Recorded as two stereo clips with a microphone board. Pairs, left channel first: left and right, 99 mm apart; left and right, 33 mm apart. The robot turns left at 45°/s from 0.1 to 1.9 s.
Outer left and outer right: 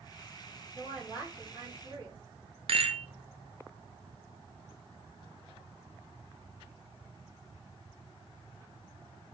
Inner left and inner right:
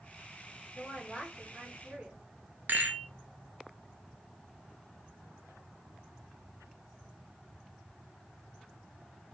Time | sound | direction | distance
0.8 | a woman speaking | straight ahead | 1.7 m
2.7 | a rattle | 70° right (ahead or behind) | 0.7 m